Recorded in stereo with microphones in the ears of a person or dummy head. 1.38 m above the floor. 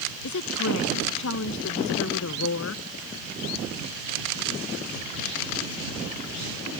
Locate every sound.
0.2 s a woman speaking: 65° left (ahead or behind)